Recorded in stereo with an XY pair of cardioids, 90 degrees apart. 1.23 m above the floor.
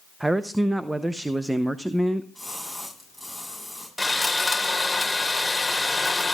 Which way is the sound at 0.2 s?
15° right.